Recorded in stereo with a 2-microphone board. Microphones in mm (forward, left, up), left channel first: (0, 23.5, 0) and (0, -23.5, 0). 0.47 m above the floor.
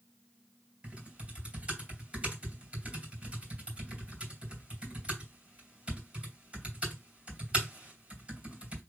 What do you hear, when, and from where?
0.8 s typing on a keyboard: 25° right (ahead or behind), 2.5 m